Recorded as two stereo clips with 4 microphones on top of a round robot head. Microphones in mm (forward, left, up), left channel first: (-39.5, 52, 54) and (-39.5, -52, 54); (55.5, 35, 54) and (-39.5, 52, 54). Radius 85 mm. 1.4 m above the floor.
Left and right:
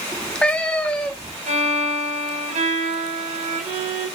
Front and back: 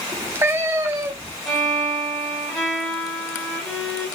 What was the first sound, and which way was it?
A cat meowing, 155° left.